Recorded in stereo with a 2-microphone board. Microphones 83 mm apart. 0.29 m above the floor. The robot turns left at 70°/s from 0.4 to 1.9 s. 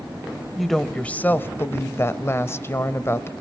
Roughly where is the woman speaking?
Behind.